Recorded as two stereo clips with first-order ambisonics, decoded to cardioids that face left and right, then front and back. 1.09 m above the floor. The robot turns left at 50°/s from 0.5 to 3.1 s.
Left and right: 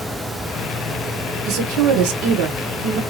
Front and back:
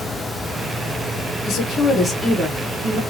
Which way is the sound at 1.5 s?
50° right.